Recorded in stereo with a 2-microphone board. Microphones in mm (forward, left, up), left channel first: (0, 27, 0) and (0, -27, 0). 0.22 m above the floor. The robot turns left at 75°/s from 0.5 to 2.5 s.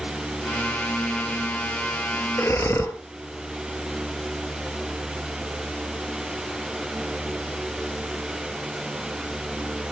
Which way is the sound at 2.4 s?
45° left (ahead or behind).